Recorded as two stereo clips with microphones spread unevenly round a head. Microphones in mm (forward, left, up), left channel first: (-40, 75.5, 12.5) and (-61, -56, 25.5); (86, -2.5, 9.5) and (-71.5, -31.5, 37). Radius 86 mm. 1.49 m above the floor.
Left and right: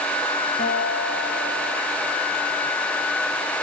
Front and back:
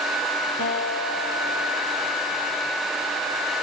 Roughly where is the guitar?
Ahead left.